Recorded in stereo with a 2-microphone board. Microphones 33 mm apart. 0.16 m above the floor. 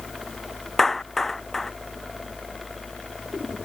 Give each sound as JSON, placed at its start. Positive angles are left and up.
{"t": 0.8, "sound": "a clap", "side_deg": 10}